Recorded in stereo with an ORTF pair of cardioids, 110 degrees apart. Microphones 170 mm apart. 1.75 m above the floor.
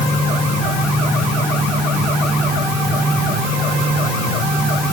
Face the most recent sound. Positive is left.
No sound to turn to.